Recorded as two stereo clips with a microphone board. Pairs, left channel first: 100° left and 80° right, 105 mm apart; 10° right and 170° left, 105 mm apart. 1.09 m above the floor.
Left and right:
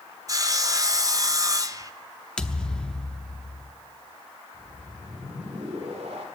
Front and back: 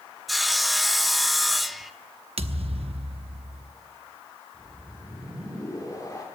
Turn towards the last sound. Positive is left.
turn(degrees=-65)